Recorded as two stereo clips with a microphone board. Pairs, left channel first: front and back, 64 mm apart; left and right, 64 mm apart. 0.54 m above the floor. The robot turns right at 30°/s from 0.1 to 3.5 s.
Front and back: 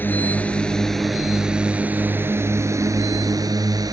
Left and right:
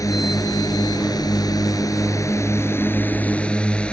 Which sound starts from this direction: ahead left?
A drone, at 0.0 s.